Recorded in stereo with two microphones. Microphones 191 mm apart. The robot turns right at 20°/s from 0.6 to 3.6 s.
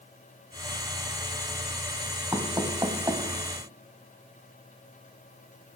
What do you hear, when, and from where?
2.3 s knocking: 20° right (ahead or behind), 1.0 m